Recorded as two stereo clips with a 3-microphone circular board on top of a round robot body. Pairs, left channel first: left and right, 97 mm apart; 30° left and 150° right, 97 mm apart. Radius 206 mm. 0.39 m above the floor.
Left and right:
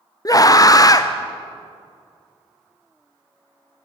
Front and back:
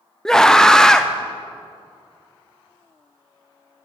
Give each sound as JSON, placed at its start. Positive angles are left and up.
{"t": 0.2, "sound": "a scream", "azimuth_deg": 110, "distance_m": 1.1}